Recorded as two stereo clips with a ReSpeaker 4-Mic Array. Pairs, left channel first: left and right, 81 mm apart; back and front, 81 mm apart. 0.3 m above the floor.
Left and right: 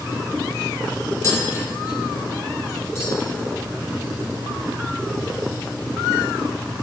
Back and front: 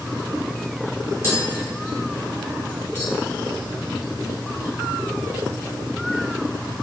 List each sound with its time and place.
1.2 s tapping: 50° left, 1.0 m